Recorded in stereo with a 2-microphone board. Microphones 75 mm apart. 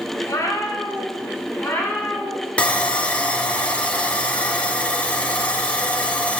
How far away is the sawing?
About 0.7 m.